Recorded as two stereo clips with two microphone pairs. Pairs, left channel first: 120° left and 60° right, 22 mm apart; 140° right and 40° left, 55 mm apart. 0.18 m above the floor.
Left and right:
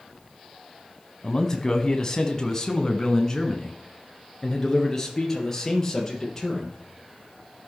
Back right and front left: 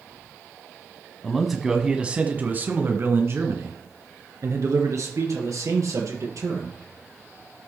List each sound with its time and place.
1.2 s a man speaking: 145° left, 1.1 m; by 6.8 s 45° left, 3.5 m